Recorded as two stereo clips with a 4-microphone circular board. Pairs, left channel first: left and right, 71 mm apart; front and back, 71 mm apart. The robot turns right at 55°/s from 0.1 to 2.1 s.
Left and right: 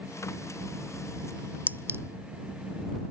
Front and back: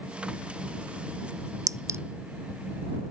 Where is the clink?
155° right; by 2.0 s 135° right.